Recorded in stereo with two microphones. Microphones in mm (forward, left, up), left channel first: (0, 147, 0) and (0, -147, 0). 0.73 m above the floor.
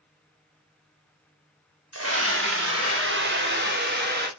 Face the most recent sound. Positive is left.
turn(degrees=-35)  # may be behind; listen again after turning